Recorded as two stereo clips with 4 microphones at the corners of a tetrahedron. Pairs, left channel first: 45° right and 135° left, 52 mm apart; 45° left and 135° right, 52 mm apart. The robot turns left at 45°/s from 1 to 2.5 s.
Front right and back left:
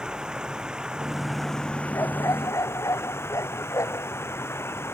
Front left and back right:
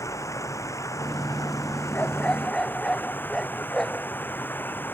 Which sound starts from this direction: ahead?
A dog barking, at 1.9 s.